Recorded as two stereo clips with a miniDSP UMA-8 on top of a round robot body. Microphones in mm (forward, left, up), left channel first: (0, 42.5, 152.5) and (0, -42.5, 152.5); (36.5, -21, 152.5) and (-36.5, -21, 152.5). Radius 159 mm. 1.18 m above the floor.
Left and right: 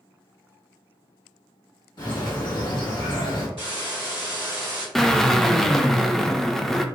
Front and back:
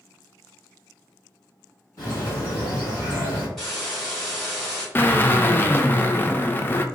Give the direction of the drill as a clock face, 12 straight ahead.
12 o'clock.